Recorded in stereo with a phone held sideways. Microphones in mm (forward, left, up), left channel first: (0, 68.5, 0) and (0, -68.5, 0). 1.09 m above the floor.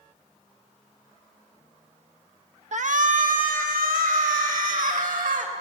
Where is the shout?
60° right (ahead or behind), 1.3 m; by 5.5 s 85° right, 4.5 m.